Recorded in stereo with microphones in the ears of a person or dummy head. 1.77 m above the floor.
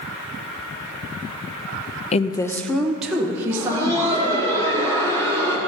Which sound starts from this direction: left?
A woman speaking, at 2.1 s.